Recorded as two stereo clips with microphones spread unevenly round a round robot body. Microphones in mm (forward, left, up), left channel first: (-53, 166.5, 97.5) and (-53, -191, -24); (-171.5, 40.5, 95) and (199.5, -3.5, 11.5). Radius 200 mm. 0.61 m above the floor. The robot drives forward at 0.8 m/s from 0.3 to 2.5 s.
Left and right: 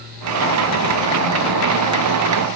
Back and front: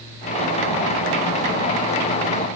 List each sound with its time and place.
Only background noise.